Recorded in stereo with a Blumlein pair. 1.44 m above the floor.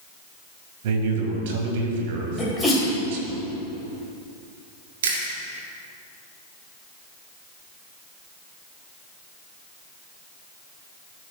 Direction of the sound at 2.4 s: 10° left.